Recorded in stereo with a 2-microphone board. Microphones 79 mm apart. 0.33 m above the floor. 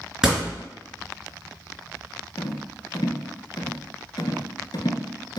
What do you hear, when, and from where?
0.2 s a door slam: 10° right (ahead or behind), 3 m
2.4 s a rattle: 70° left (ahead or behind), 1.0 m